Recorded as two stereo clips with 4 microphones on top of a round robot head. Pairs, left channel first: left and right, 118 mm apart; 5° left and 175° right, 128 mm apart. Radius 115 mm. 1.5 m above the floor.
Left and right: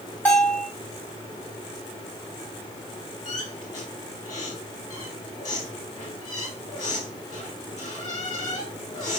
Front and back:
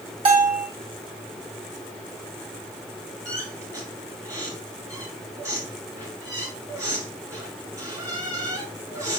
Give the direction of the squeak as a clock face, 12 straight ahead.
7 o'clock.